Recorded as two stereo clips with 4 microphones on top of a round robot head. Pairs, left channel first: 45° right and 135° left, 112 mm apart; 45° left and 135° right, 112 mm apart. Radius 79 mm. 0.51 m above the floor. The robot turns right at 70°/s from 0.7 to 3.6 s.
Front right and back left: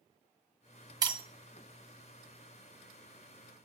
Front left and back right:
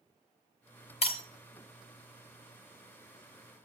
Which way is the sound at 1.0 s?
75° left.